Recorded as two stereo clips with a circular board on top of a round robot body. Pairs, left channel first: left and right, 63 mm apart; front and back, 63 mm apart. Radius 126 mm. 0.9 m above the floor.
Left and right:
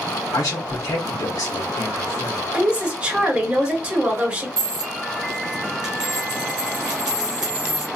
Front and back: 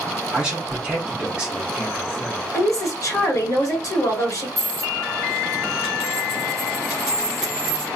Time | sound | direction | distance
0.3 | a man speaking | 105° left | 1.0 m
2.5 | a woman speaking | 20° right | 1.6 m
4.6 | a dropped coin | 95° right | 1.1 m